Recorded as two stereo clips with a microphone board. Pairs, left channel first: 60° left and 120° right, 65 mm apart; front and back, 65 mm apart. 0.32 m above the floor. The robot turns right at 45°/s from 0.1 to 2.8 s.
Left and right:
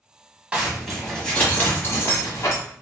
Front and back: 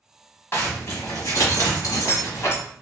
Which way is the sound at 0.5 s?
45° right.